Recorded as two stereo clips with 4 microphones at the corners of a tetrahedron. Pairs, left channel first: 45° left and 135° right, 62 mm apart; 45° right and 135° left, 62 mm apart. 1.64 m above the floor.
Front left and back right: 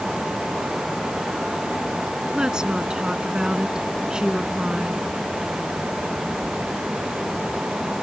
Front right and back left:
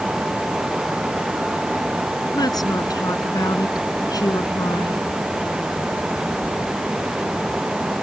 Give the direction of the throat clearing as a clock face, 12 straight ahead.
No throat clearing in this recording.